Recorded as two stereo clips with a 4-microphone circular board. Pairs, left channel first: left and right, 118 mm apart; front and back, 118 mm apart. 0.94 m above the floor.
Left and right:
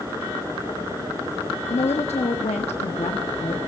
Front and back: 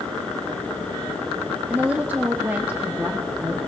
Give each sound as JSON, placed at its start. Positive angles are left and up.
{"t": 1.7, "sound": "a woman speaking", "azimuth_deg": 105, "distance_m": 1.3}